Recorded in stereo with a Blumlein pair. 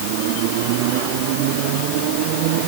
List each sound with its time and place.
Only background noise.